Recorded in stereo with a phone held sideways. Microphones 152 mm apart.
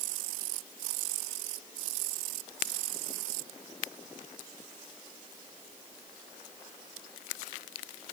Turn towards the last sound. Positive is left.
No sound to turn to.